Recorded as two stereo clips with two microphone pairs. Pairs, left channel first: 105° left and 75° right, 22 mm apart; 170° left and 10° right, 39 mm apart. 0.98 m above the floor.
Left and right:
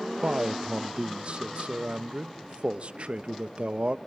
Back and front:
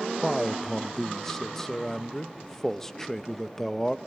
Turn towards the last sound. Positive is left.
turn(degrees=-115)